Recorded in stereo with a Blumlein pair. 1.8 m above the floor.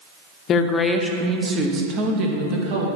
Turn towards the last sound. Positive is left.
turn(degrees=-45)